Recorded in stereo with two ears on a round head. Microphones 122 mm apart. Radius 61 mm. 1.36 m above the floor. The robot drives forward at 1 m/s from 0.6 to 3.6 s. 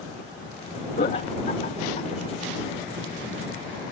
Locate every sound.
1.0 s laughter: 60° left (ahead or behind); by 2.1 s 45° left (ahead or behind)